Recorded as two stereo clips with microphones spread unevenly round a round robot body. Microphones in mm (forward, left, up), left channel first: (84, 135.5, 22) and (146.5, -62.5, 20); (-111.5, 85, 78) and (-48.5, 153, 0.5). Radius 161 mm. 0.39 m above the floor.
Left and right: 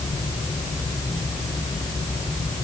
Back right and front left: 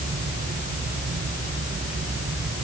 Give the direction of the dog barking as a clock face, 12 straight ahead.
I don't hear a dog barking.